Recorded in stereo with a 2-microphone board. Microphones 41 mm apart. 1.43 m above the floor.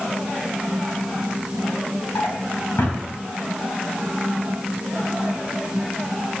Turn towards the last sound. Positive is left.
turn(degrees=70)  # may be behind; listen again after turning